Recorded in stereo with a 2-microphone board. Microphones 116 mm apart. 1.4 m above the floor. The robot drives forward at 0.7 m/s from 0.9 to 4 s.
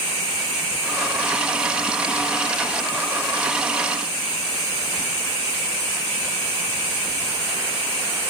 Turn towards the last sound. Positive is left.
No sound to turn to.